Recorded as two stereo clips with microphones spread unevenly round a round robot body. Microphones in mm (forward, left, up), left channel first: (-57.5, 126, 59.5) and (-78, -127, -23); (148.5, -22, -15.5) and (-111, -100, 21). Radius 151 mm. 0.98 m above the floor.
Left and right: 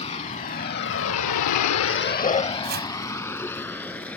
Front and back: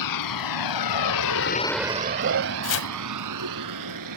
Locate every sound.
0.0 s a vehicle: 15° left; by 4.2 s 170° left
2.6 s chopping: 30° right